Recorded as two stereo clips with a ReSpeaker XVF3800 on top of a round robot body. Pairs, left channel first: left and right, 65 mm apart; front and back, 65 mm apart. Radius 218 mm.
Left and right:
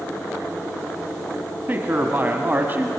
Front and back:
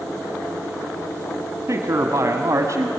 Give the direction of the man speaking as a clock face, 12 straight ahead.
5 o'clock.